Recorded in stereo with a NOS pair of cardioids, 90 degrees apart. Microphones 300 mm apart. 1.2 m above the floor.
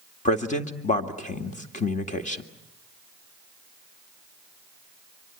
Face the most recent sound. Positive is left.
turn(degrees=25)